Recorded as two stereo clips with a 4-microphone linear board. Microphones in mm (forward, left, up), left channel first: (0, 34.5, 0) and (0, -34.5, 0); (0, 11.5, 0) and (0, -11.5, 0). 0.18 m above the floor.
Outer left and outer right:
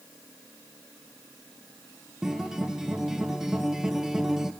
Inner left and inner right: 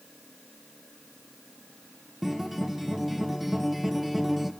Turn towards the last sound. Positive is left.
turn(degrees=-5)  # may be behind; listen again after turning